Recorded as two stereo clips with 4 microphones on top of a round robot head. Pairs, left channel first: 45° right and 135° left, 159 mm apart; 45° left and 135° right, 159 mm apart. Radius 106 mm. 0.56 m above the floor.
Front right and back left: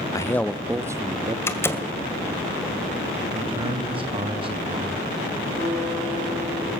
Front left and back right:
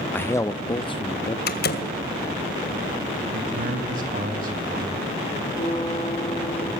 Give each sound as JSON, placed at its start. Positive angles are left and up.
{"t": 0.1, "sound": "a man speaking", "azimuth_deg": -15, "distance_m": 0.7}
{"t": 1.5, "sound": "a door slam", "azimuth_deg": 30, "distance_m": 2.0}
{"t": 3.3, "sound": "a man speaking", "azimuth_deg": -170, "distance_m": 3.5}
{"t": 5.6, "sound": "a guitar", "azimuth_deg": 115, "distance_m": 7.5}